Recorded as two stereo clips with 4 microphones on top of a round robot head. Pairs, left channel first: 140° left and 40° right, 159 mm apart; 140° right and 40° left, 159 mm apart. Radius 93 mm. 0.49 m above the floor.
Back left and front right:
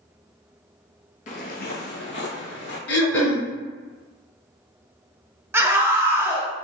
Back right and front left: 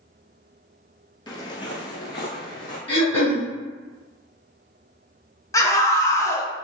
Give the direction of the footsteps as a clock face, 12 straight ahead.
6 o'clock.